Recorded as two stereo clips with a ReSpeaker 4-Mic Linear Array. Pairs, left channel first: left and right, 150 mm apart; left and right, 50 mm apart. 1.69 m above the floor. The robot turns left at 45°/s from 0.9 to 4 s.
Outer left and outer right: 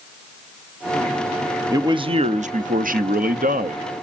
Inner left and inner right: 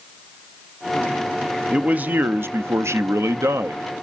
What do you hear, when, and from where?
1.7 s a man speaking: 25° right, 0.7 m; by 4.0 s 125° right, 0.7 m